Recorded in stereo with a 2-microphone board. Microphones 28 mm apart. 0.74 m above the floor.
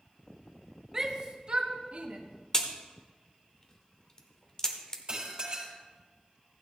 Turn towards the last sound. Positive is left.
turn(degrees=-35)  # may be behind; listen again after turning